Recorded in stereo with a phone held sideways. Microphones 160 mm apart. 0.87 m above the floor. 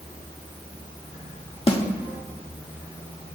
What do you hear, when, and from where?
1.7 s a snare drum: 35° left (ahead or behind), 0.8 m